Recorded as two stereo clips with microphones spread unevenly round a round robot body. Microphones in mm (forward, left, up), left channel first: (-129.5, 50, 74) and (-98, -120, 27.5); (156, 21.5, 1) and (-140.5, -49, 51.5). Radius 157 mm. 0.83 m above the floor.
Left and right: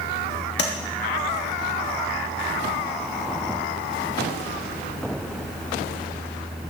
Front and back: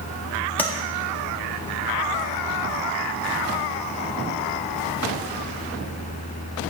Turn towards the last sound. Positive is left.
turn(degrees=95)